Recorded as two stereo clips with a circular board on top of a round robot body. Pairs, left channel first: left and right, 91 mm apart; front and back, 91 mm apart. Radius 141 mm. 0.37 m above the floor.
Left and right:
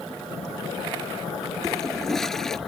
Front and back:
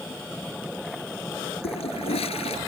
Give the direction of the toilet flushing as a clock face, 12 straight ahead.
12 o'clock.